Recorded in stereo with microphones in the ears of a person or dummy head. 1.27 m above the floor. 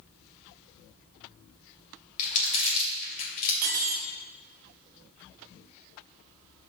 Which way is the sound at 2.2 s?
40° left (ahead or behind).